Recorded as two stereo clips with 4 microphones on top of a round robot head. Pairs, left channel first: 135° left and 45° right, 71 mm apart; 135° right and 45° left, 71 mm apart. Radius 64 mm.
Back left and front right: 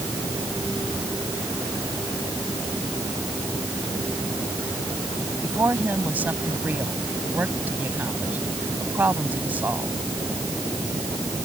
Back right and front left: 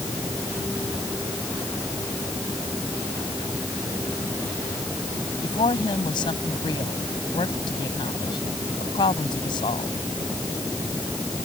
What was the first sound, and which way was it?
A woman speaking, 115° right.